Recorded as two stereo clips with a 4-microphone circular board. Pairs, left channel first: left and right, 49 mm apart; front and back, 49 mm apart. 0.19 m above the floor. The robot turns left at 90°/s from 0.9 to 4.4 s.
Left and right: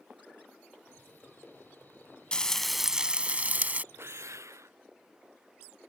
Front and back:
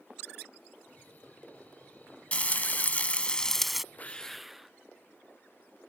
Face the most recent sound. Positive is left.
turn(degrees=-95)